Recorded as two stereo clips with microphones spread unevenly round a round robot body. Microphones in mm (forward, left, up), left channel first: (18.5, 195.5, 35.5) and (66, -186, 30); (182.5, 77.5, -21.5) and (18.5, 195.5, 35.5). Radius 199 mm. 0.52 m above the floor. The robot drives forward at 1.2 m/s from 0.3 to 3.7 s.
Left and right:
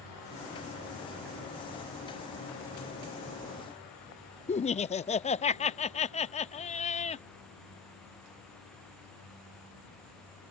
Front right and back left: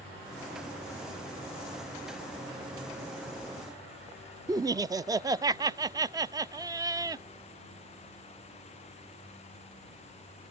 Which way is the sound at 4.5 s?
60° left.